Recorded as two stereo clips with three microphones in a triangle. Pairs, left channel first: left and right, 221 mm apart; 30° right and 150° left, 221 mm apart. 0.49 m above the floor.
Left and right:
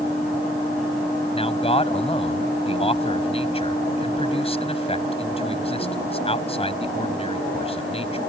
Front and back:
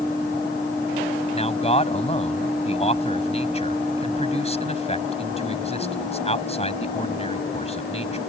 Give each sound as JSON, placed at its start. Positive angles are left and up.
{"t": 1.3, "sound": "a man speaking", "azimuth_deg": 30}